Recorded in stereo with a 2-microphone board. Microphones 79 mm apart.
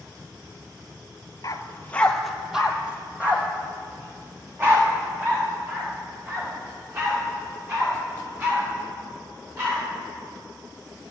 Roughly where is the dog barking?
Left.